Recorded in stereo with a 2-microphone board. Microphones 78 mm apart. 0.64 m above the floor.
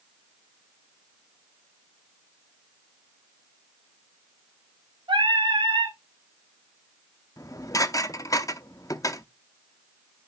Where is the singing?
75° right (ahead or behind), 4.5 m.